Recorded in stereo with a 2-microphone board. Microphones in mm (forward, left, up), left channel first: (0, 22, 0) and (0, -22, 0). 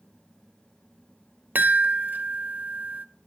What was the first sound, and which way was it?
A chime, 45° right (ahead or behind).